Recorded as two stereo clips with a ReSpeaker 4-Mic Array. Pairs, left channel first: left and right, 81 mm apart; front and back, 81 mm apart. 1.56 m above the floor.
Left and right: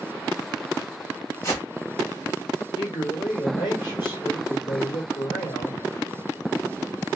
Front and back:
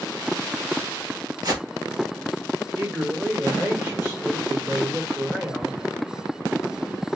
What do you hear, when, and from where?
1.4 s a whoosh: 140° left, 1.1 m
2.8 s a man speaking: 115° left, 1.6 m